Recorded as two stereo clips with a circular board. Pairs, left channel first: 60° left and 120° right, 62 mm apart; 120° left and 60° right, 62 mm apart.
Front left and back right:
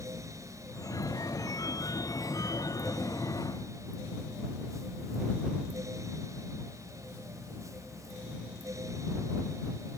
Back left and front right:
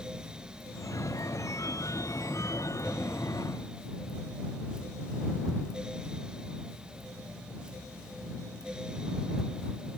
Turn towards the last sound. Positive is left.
turn(degrees=85)